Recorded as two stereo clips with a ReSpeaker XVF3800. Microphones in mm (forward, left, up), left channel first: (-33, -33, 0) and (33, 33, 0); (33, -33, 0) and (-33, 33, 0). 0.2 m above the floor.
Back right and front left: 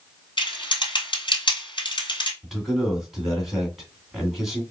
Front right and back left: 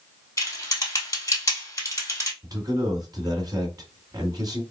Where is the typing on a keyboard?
100° right, 1.8 m.